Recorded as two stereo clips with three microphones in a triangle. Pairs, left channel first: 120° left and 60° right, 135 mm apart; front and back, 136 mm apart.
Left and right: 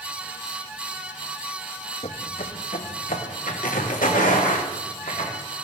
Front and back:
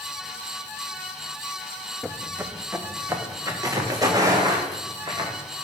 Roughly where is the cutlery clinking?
I don't hear cutlery clinking.